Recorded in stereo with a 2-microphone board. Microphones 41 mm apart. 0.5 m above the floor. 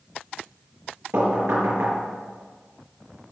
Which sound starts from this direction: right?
Knocking, at 1.1 s.